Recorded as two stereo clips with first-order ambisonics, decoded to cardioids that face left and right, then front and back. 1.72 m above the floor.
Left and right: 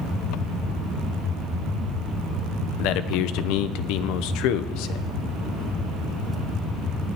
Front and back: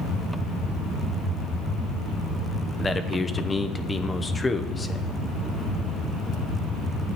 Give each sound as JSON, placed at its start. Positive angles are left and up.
{"t": 2.8, "sound": "a man speaking", "azimuth_deg": 75, "distance_m": 0.9}